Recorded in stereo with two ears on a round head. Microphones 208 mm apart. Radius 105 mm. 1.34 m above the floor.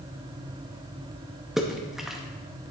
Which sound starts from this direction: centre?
A splash, at 1.6 s.